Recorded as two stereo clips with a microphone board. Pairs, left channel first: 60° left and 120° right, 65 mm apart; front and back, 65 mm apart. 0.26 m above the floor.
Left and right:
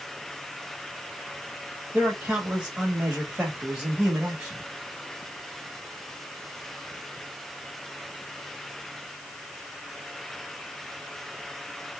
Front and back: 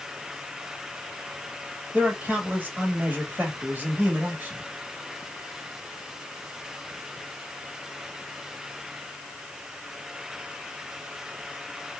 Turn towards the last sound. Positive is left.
turn(degrees=-165)